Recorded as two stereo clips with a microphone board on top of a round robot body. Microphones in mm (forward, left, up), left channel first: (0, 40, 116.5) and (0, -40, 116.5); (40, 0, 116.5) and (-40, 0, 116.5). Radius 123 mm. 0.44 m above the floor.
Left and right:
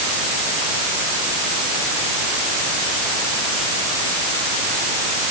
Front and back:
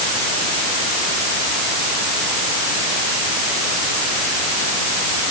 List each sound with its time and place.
Only background noise.